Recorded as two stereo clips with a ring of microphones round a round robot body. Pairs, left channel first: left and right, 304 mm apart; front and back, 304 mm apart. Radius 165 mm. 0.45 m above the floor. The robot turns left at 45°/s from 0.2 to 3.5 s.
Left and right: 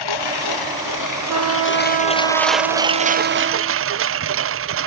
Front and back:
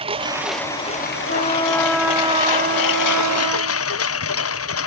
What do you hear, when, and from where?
0.0 s a lawn mower: 105° left; by 4.9 s 45° right
1.3 s a trumpet: 60° right; by 3.9 s 160° right